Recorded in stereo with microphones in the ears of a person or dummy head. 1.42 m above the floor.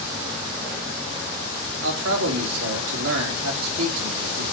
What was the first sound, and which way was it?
A man speaking, 80° right.